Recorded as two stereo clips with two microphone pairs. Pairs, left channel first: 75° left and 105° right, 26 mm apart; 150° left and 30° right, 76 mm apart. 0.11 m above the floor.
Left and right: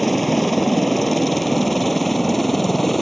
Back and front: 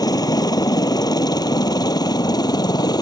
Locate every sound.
0.0 s a helicopter: 160° left